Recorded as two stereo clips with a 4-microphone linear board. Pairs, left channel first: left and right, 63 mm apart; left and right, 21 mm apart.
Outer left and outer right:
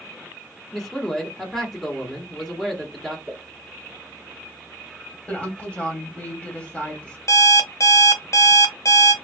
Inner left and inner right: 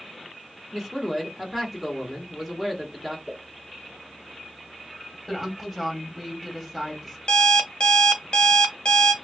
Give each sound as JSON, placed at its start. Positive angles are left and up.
{"t": 0.7, "sound": "a man speaking", "side_deg": 0, "distance_m": 1.0}
{"t": 3.3, "sound": "a pop", "side_deg": -30, "distance_m": 1.7}
{"t": 5.3, "sound": "a woman speaking", "side_deg": 20, "distance_m": 1.3}
{"t": 7.3, "sound": "an alarm clock", "side_deg": 55, "distance_m": 0.7}